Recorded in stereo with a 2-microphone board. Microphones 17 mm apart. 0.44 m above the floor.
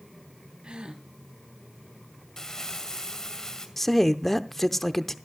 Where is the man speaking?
10° left (ahead or behind), 0.7 m.